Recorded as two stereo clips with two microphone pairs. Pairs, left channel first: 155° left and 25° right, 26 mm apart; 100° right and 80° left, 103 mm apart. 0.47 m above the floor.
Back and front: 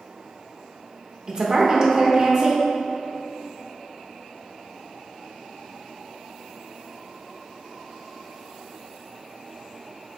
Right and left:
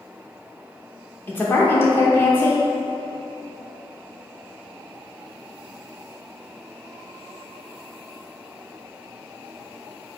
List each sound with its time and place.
1.3 s a woman speaking: 55° right, 0.9 m